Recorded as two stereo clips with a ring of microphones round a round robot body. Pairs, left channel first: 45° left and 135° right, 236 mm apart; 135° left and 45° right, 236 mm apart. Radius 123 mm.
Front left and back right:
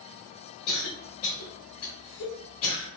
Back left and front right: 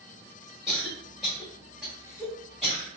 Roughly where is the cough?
Ahead left.